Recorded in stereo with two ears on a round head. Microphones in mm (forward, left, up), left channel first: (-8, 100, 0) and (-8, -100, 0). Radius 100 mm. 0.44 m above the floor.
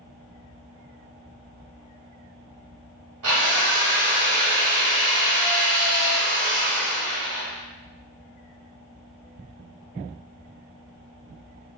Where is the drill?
70° right (ahead or behind), 2.0 m.